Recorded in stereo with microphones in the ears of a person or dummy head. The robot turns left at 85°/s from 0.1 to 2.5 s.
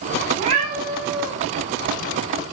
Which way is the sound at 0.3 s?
125° right.